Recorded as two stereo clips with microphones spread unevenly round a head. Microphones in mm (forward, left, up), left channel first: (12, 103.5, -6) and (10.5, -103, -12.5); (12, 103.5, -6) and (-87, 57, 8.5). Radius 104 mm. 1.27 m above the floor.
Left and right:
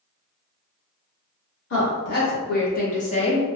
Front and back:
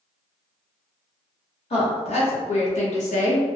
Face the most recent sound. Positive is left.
turn(degrees=15)